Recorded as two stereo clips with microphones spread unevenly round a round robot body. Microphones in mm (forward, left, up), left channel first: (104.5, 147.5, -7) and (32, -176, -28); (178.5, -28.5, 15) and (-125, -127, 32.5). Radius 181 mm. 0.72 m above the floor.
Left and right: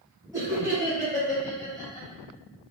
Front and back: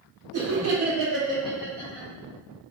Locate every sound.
0.3 s laughter: straight behind, 1.2 m; by 2.1 s 15° left, 0.7 m